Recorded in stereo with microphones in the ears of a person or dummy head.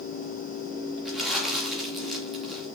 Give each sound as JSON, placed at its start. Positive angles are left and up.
{"t": 1.1, "sound": "crumpling", "side_deg": 5, "distance_m": 2.5}